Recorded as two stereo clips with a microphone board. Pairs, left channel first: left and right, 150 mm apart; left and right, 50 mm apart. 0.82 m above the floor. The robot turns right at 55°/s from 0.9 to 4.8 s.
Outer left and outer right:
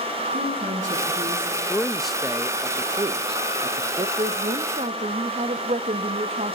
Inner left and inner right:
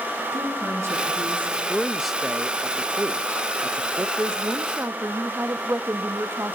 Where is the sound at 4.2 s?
120° right, 1.3 m; by 6.5 s 85° right, 1.3 m.